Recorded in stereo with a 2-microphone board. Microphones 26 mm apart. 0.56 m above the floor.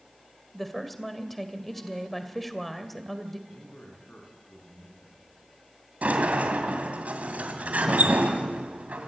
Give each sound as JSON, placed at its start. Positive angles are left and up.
{"t": 0.5, "sound": "a woman speaking", "side_deg": 5, "distance_m": 2.0}
{"t": 3.5, "sound": "a man speaking", "side_deg": 70, "distance_m": 7.0}
{"t": 6.0, "sound": "a sliding door", "side_deg": -85, "distance_m": 2.5}